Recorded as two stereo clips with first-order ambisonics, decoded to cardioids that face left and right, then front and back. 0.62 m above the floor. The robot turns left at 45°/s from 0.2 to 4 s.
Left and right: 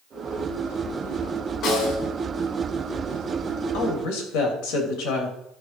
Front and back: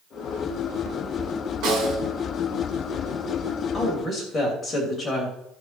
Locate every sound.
1.6 s a snare drum: 150° left, 3.5 m; by 2.0 s 130° left, 3.5 m
3.7 s a woman speaking: 85° left, 3 m; by 5.4 s 75° left, 3 m